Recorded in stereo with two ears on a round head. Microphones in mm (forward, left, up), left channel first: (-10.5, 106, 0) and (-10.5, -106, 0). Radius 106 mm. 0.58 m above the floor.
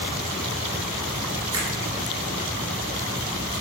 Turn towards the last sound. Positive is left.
turn(degrees=-20)  # may be behind; listen again after turning